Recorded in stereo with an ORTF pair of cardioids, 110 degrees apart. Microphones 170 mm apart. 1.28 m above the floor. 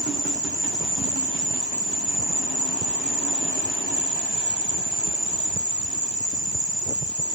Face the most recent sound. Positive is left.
turn(degrees=-5)